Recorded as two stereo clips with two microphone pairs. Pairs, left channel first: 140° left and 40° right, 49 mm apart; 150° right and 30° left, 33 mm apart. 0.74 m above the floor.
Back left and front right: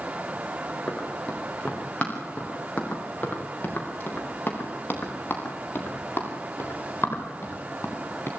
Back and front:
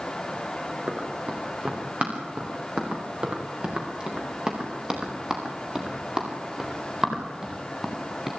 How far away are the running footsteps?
About 7 m.